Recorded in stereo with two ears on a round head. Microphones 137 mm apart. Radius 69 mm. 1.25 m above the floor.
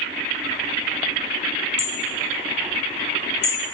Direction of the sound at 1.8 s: 50° left (ahead or behind).